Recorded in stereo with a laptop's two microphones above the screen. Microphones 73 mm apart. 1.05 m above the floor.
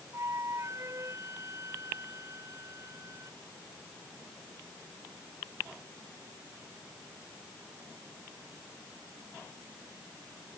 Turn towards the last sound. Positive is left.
turn(degrees=-45)  # may be behind; listen again after turning